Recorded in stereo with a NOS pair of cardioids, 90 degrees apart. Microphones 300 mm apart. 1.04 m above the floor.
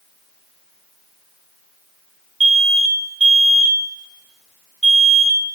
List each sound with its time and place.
2.4 s an alarm: 20° right, 3 m